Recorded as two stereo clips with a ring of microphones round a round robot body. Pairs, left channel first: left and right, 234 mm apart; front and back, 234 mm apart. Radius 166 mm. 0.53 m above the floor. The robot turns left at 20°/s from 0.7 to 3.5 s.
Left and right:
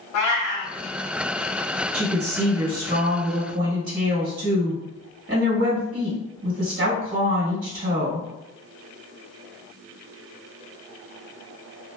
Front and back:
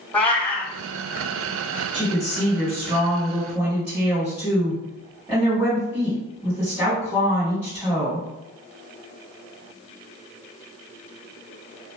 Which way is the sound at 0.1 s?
85° left.